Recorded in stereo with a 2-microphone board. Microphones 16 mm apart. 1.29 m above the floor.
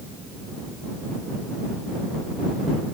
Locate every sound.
Only background noise.